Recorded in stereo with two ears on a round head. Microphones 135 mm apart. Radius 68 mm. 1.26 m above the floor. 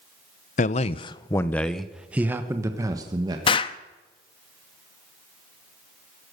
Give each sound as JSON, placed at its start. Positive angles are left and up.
{"t": 0.6, "sound": "a man speaking", "side_deg": 55, "distance_m": 0.7}
{"t": 3.5, "sound": "an explosion", "side_deg": 35, "distance_m": 0.7}